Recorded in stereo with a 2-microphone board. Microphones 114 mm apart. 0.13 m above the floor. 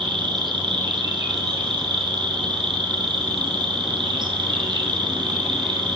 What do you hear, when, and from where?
0.0 s an insect: 45° right (ahead or behind), 3 m